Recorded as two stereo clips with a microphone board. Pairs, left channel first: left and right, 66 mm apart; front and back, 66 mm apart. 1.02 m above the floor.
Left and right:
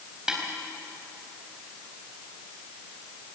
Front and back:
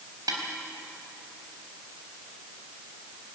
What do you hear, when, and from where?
0.3 s a snare drum: 170° right, 4 m